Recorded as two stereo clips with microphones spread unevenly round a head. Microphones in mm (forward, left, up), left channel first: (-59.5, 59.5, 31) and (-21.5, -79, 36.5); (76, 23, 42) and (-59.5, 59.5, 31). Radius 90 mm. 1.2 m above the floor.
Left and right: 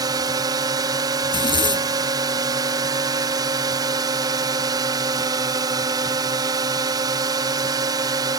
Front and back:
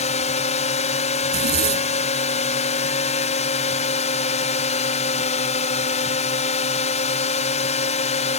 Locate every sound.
0.0 s a drone: 15° right
1.2 s a zipper: 165° left